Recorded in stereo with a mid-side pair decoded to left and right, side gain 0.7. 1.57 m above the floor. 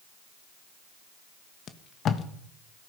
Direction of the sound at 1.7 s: 40° left.